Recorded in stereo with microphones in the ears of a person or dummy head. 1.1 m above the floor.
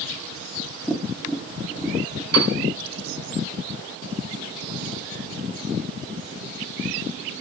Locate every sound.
0.9 s tapping: 5° left (ahead or behind), 1.1 m
2.3 s a piano: 85° right, 4 m